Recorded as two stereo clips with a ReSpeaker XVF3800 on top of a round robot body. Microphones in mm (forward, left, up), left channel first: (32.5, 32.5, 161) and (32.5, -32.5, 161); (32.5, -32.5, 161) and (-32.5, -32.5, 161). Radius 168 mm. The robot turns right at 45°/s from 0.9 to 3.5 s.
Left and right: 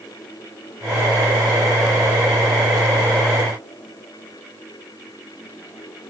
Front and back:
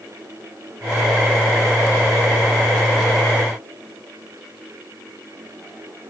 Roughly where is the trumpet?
No trumpet in this recording.